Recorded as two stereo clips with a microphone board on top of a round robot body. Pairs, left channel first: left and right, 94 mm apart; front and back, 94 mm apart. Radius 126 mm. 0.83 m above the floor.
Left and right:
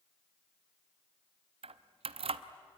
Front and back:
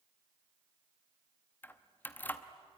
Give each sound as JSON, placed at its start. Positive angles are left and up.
{"t": 1.6, "sound": "keys jangling", "azimuth_deg": -70, "distance_m": 0.8}